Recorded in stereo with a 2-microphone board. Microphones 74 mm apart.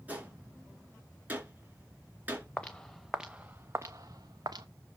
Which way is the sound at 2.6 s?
20° left (ahead or behind).